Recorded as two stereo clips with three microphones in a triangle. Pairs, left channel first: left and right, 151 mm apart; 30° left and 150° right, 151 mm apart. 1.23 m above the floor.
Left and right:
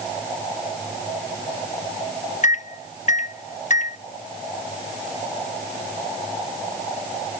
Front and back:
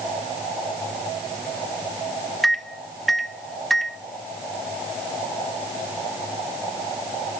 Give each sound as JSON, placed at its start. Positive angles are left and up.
{"t": 2.4, "sound": "a microwave", "azimuth_deg": 120, "distance_m": 0.5}